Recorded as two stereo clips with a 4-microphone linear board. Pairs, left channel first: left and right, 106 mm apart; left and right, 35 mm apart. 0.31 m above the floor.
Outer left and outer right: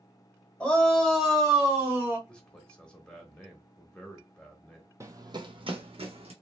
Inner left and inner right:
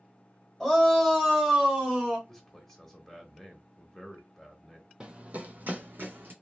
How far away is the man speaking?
About 0.9 m.